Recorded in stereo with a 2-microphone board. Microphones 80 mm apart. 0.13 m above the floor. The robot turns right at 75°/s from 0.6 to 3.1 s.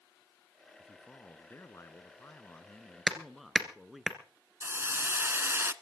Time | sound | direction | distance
0.8 | a man speaking | 10° left | 1.2 m
3.1 | hammering | centre (ahead or behind) | 1.8 m
4.6 | a hiss | 30° right (ahead or behind) | 0.6 m